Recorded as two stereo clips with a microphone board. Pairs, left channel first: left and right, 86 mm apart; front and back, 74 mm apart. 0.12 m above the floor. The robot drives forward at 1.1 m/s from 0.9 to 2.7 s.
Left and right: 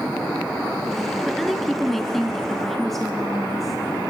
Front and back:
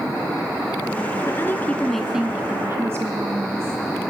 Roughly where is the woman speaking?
Ahead.